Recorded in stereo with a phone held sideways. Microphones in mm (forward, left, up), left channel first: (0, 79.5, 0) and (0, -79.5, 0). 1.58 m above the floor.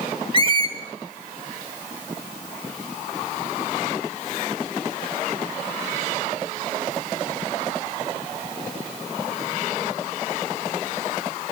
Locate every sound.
0.3 s a squeak: 35° right (ahead or behind), 0.8 m